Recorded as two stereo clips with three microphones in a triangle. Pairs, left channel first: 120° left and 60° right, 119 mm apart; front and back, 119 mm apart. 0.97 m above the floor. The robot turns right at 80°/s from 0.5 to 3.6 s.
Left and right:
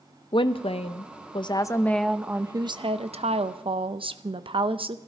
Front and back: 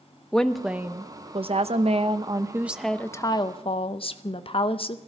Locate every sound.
0.3 s a woman speaking: 85° left, 0.7 m; by 5.0 s 30° right, 0.7 m